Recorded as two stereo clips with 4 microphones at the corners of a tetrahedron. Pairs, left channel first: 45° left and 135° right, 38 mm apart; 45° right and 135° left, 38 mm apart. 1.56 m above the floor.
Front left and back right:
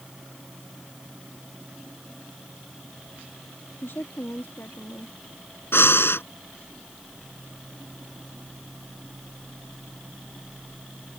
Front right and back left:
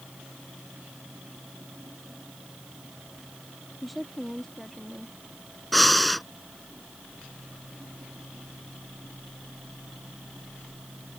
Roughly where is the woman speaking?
Ahead left.